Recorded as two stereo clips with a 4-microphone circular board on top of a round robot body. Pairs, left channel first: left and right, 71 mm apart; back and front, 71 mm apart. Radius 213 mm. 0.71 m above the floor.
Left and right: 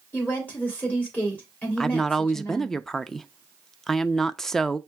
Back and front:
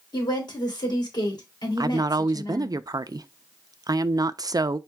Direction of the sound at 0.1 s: 155° left.